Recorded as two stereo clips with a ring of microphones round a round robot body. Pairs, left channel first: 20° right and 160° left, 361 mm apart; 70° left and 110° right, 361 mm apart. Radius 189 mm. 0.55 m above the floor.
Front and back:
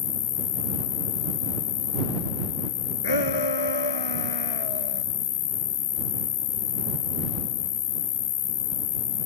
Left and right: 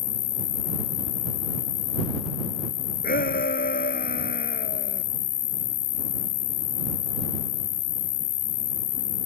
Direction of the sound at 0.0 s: 25° left.